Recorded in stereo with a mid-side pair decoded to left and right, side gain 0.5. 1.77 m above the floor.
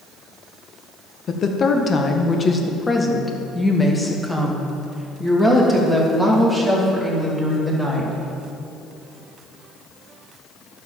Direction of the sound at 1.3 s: 50° left.